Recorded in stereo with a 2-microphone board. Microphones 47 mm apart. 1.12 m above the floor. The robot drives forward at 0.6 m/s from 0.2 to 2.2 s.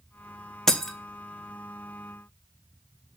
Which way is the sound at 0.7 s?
10° left (ahead or behind).